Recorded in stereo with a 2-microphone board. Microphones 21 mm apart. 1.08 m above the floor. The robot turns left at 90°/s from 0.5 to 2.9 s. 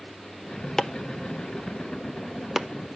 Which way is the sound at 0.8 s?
25° left (ahead or behind).